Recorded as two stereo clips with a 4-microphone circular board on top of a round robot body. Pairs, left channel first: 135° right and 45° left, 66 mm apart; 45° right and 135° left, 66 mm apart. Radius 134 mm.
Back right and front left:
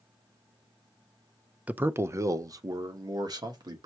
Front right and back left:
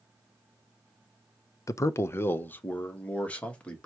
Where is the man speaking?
20° right, 0.5 m; by 3.9 s 30° left, 1.4 m.